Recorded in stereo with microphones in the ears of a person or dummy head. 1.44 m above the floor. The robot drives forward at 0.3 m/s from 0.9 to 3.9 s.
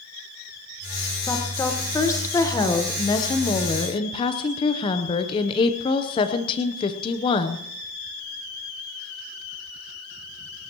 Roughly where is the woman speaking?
Centre.